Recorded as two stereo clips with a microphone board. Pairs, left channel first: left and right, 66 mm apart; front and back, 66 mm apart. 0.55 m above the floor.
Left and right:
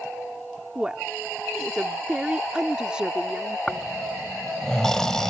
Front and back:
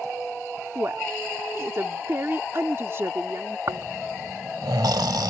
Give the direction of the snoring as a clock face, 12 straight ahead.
6 o'clock.